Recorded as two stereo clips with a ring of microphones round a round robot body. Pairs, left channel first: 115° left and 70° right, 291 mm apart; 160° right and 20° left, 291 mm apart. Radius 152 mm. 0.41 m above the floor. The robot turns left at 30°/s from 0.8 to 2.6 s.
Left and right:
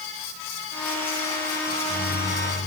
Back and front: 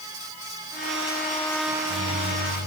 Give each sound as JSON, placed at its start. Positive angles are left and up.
{"t": 1.7, "sound": "a microwave", "azimuth_deg": 60, "distance_m": 8.5}